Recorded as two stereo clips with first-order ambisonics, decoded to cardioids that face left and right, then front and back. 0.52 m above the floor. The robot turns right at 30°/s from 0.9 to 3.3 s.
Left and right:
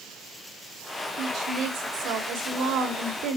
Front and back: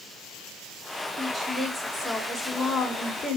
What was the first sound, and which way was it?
A woman speaking, 130° right.